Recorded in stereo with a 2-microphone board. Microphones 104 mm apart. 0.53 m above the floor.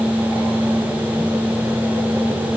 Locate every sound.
Only background noise.